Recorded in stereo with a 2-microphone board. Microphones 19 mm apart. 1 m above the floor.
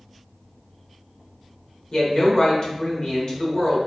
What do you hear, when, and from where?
1.9 s a woman speaking: 45° left (ahead or behind), 0.9 m